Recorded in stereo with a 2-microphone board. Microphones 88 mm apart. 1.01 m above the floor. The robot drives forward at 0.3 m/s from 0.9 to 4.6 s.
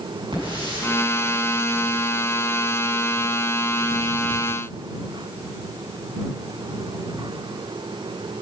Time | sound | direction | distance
0.3 | a hiss | 70° right (ahead or behind) | 7.5 m